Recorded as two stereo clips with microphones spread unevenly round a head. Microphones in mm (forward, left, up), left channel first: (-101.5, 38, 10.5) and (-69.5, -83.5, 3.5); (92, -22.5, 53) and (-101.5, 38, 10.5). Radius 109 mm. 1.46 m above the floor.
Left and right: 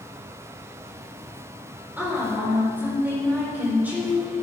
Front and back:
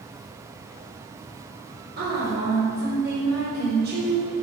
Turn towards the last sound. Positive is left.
turn(degrees=-150)